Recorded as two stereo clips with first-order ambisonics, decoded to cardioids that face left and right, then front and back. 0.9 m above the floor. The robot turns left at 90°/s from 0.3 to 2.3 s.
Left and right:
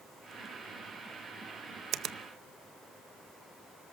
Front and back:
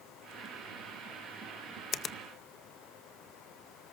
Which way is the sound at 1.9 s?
50° right.